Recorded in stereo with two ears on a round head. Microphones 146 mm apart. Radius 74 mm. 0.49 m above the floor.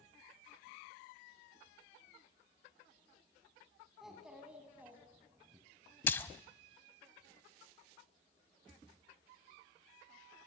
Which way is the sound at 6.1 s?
10° left (ahead or behind).